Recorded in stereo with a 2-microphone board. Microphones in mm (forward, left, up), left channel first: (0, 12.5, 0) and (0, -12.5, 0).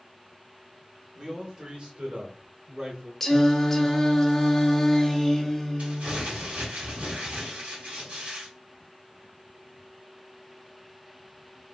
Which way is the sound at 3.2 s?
15° left (ahead or behind).